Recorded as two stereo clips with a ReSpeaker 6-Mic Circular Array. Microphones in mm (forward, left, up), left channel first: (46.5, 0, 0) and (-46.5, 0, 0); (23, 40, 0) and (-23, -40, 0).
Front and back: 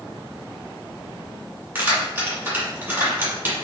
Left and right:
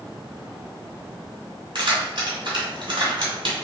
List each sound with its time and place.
1.8 s keys jangling: 110° right, 1.8 m